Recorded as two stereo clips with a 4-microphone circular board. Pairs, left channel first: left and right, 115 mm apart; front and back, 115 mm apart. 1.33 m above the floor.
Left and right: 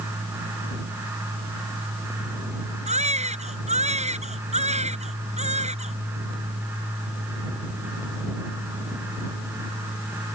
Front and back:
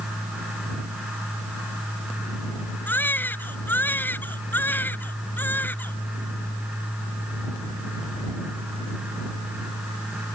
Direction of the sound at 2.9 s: 75° right.